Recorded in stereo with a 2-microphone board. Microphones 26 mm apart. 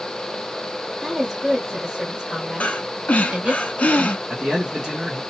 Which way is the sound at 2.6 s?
65° left (ahead or behind).